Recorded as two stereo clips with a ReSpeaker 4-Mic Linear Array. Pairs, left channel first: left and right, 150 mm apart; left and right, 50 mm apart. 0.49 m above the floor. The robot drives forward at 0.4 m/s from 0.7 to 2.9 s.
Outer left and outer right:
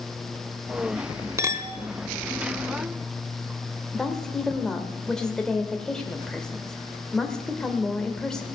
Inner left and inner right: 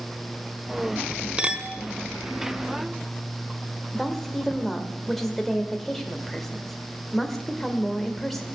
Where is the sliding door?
I don't hear a sliding door.